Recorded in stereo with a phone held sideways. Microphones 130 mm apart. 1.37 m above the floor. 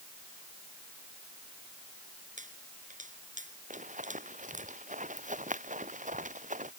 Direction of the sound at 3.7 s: 75° right (ahead or behind).